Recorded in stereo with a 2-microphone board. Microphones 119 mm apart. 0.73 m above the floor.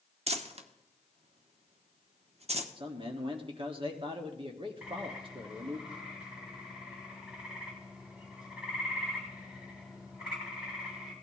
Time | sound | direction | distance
0.3 | crumpling | 60° right (ahead or behind) | 0.9 m
2.8 | a man speaking | 45° right (ahead or behind) | 1.5 m
4.8 | a bird | 5° right (ahead or behind) | 3 m